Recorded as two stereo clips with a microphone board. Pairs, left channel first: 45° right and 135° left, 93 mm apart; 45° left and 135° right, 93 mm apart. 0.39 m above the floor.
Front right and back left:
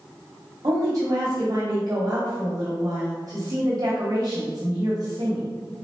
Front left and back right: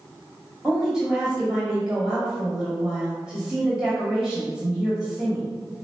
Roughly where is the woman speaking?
Behind left.